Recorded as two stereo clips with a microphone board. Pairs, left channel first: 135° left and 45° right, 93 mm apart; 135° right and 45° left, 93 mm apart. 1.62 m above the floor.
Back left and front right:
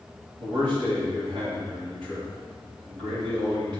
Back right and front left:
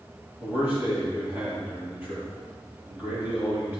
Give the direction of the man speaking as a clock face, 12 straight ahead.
1 o'clock.